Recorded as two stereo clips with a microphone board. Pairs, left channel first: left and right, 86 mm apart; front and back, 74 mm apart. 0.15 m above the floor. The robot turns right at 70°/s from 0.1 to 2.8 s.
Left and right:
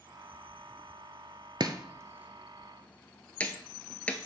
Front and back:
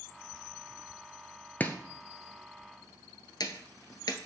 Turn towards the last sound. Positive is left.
turn(degrees=15)